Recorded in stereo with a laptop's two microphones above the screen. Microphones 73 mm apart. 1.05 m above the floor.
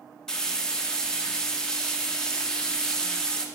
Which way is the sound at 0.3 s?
10° left (ahead or behind).